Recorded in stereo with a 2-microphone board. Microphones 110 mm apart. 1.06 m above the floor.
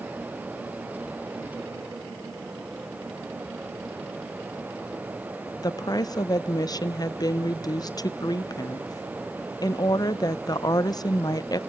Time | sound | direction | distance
5.6 | a woman speaking | 35° left (ahead or behind) | 0.6 m